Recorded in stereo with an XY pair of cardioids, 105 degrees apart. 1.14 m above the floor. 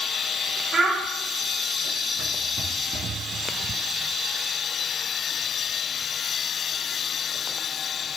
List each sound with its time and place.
0.7 s a child speaking: 25° right, 0.6 m